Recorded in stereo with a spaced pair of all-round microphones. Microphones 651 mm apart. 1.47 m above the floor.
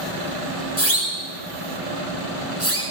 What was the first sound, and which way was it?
A siren, 20° left (ahead or behind).